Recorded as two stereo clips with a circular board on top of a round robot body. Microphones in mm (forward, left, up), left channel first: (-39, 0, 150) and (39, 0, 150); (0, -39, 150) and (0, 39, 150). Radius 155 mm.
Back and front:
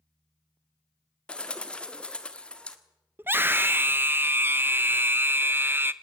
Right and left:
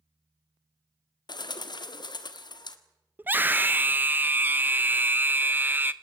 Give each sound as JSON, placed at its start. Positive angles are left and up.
{"t": 1.3, "sound": "a bird", "azimuth_deg": -105, "distance_m": 1.7}
{"t": 3.2, "sound": "a scream", "azimuth_deg": 45, "distance_m": 0.9}